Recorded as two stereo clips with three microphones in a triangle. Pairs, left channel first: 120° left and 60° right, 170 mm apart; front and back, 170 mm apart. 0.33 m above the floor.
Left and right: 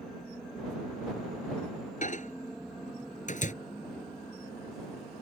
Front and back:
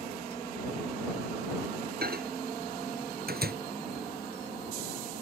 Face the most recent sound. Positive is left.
turn(degrees=160)